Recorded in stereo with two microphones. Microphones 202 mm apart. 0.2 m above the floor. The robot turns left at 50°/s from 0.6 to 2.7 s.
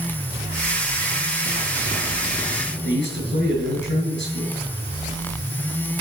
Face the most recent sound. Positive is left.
turn(degrees=65)  # may be behind; listen again after turning